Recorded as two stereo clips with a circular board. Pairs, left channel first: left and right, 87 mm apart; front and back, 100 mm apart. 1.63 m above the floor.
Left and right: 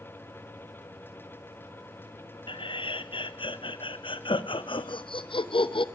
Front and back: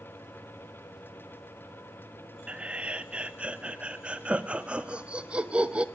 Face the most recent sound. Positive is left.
turn(degrees=100)